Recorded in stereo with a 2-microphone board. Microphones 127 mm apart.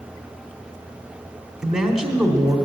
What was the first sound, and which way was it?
A man speaking, 5° right (ahead or behind).